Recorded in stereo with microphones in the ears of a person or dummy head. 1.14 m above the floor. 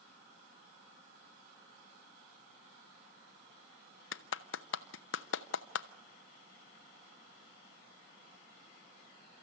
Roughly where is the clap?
Left.